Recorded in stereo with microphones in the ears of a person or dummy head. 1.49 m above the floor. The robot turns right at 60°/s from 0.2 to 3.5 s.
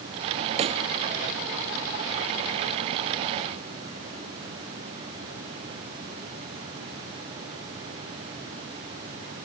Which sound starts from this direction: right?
A pop, at 0.6 s.